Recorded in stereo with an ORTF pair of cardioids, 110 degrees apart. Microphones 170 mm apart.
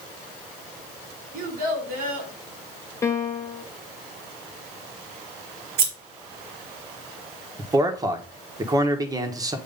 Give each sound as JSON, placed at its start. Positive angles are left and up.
{"t": 1.3, "sound": "a child speaking", "azimuth_deg": -65, "distance_m": 2.5}
{"t": 3.0, "sound": "a piano", "azimuth_deg": 15, "distance_m": 1.0}
{"t": 5.8, "sound": "scissors", "azimuth_deg": -70, "distance_m": 2.0}
{"t": 7.6, "sound": "a man speaking", "azimuth_deg": -20, "distance_m": 1.3}